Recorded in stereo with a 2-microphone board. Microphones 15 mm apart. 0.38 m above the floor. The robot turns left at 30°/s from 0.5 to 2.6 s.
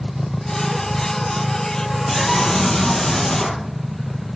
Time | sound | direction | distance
2.1 | a scream | 50° left (ahead or behind) | 9 m